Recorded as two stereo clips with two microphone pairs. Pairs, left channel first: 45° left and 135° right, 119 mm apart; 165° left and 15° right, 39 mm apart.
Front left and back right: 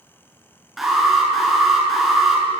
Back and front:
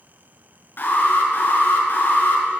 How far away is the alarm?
About 7.5 m.